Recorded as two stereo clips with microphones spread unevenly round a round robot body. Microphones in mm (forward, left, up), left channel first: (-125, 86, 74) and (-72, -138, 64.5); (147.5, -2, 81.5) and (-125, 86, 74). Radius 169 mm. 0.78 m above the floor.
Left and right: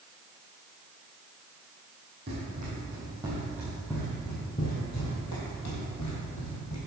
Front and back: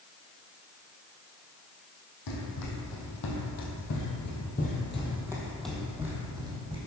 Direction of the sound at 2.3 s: 15° right.